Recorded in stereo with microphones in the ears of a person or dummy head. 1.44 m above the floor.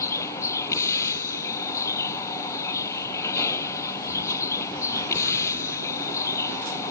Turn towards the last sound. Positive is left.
turn(degrees=15)  # may be behind; listen again after turning